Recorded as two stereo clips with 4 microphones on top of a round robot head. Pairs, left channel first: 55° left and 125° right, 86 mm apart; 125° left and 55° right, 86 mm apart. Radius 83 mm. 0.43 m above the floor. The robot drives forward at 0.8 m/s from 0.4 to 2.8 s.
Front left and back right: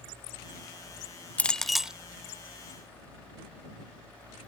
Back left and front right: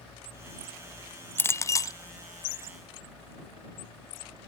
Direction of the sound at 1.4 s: 105° left.